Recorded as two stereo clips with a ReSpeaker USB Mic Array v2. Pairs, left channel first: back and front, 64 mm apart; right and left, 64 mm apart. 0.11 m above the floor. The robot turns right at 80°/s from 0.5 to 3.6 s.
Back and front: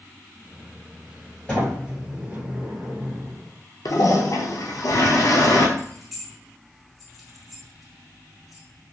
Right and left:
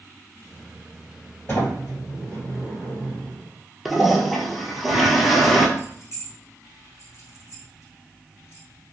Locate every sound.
1.5 s a sliding door: 115° right, 2.0 m; by 3.4 s 35° left, 2.0 m
3.9 s a toilet flushing: straight behind, 0.6 m
5.8 s keys jangling: 90° right, 1.2 m